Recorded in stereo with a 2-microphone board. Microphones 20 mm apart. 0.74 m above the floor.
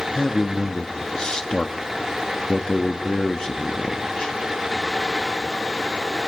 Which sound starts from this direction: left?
A man speaking, at 0.1 s.